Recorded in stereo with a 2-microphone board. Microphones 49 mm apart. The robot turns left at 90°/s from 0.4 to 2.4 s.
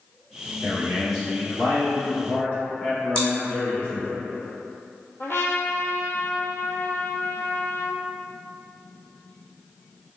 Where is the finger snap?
I don't hear a finger snap.